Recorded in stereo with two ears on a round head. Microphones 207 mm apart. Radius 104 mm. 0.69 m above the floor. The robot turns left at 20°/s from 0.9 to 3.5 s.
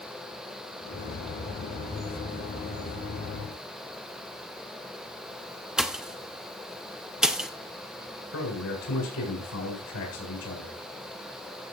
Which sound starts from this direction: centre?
A pop, at 5.8 s.